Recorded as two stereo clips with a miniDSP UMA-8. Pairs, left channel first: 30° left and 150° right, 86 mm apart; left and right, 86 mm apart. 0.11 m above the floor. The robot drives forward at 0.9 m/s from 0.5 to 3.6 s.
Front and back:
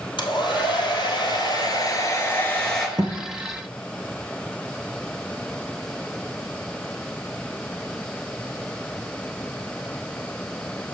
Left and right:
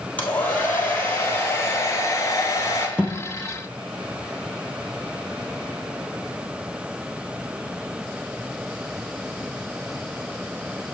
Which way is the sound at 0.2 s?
20° left.